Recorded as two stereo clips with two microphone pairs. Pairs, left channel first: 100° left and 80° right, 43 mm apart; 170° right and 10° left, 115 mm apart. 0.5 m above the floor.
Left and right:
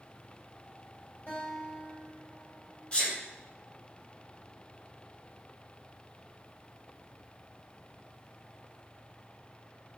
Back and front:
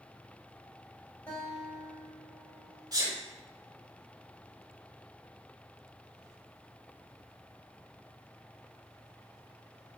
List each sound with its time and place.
1.3 s a guitar: 125° left, 1.8 m
2.9 s a sneeze: 50° left, 1.2 m